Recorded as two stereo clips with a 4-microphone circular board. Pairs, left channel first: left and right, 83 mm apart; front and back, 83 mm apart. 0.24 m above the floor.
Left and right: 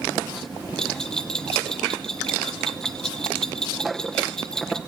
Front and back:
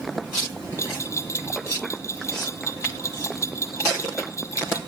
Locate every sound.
0.8 s a bell: 15° left, 1.2 m